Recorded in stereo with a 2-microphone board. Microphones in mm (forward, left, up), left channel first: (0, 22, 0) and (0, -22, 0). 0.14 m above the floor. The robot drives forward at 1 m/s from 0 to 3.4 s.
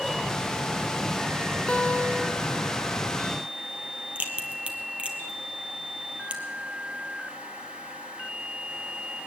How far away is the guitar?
About 0.8 m.